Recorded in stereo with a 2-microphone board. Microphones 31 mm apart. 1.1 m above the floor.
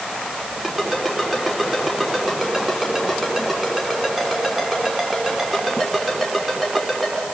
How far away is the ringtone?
About 6 m.